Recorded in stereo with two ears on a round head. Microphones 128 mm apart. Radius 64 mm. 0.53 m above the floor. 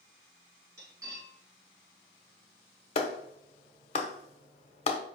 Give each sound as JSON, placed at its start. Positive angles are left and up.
{"t": 0.8, "sound": "cutlery clinking", "side_deg": -25, "distance_m": 3.5}
{"t": 3.0, "sound": "a clap", "side_deg": 40, "distance_m": 1.1}